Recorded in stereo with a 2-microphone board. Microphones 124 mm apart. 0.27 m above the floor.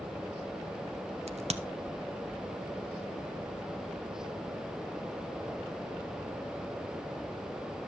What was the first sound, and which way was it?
A crack, 60° right (ahead or behind).